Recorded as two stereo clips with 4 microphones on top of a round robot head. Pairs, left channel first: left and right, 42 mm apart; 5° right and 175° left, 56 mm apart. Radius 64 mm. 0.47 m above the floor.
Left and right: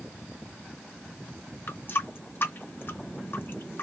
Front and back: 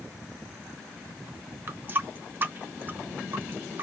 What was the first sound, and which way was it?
A running tap, 120° left.